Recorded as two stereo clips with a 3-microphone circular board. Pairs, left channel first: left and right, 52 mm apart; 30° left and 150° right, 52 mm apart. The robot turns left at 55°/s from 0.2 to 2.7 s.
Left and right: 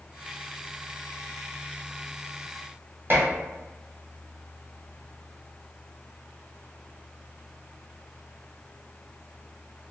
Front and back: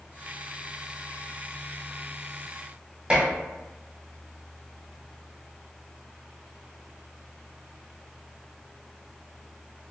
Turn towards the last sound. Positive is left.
turn(degrees=-95)